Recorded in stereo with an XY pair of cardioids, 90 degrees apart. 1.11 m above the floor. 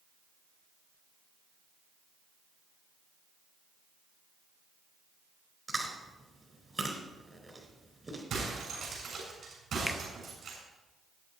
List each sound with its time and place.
5.7 s chewing: 25° right, 4 m
8.3 s breaking glass: 65° right, 7 m
9.9 s a finger snap: 10° left, 1.2 m